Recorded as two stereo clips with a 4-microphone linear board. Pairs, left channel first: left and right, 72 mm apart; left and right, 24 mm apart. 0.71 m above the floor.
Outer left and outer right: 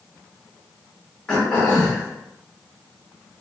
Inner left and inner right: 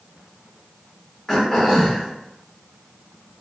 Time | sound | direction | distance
1.3 | throat clearing | 10° left (ahead or behind) | 1.1 m